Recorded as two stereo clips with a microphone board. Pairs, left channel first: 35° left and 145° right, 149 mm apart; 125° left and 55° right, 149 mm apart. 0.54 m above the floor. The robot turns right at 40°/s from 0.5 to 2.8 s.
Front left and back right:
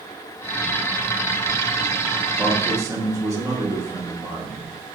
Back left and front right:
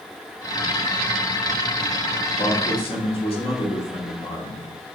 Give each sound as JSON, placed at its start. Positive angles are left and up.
{"t": 2.4, "sound": "a man speaking", "azimuth_deg": 135, "distance_m": 1.4}